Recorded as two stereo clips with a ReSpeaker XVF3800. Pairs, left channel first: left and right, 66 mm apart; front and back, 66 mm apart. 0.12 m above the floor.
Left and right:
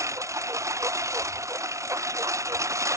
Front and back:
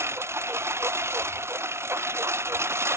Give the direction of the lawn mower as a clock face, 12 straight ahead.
4 o'clock.